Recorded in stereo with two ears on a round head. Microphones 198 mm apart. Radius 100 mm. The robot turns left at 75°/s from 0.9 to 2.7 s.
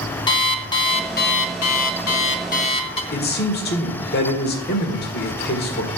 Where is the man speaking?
45° left (ahead or behind), 1.6 m.